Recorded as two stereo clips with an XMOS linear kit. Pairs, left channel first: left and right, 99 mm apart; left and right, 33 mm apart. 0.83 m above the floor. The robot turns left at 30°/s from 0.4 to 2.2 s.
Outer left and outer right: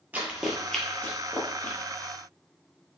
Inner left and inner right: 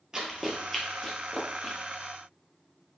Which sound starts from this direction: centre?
Running footsteps, at 0.1 s.